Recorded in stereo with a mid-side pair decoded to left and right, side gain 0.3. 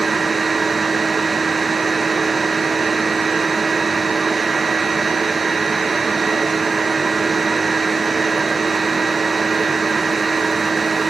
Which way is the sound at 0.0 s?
40° right.